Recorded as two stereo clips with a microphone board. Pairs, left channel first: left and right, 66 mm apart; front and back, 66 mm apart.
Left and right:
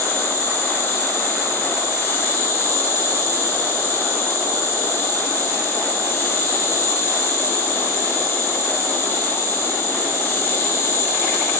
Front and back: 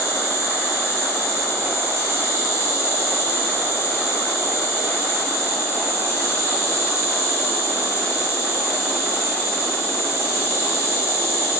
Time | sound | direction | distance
0.0 | an insect | 45° left | 3.5 m